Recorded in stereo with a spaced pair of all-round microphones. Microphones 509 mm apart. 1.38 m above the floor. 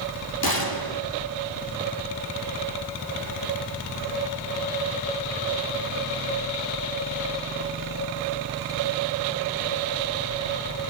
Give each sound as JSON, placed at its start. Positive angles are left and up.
{"t": 0.4, "sound": "a gunshot", "side_deg": 45, "distance_m": 2.5}